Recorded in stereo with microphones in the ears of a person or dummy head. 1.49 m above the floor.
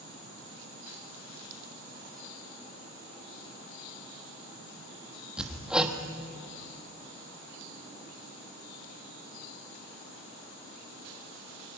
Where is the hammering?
Centre (ahead or behind), 1.1 m.